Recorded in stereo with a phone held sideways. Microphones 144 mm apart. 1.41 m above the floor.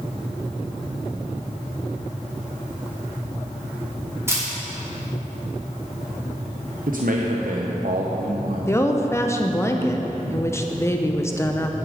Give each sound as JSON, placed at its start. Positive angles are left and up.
{"t": 4.3, "sound": "a camera shutter", "side_deg": -20, "distance_m": 3.0}
{"t": 6.9, "sound": "a man speaking", "side_deg": -70, "distance_m": 1.0}
{"t": 8.7, "sound": "a woman speaking", "side_deg": 20, "distance_m": 0.9}